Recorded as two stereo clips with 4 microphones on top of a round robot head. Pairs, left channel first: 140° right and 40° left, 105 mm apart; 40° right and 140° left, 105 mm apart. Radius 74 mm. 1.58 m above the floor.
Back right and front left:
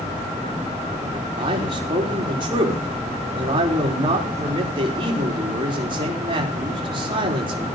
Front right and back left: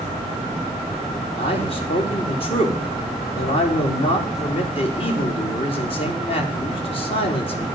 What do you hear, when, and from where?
1.4 s a man speaking: 5° right, 4 m